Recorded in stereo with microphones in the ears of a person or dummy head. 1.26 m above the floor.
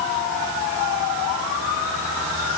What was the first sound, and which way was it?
Only background noise.